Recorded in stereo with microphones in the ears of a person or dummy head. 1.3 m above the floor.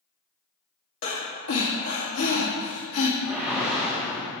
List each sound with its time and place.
1.0 s breathing: 75° left (ahead or behind), 1.4 m
3.2 s a whoosh: 5° right (ahead or behind), 1.4 m